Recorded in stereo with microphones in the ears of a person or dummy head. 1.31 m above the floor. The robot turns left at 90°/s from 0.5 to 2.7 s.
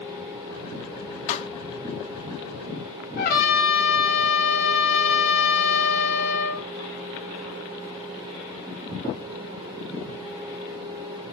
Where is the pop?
55° left (ahead or behind), 1.4 m; by 1.5 s 35° left (ahead or behind), 1.4 m.